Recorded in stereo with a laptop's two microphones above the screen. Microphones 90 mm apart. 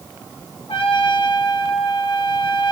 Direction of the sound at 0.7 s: 75° left (ahead or behind).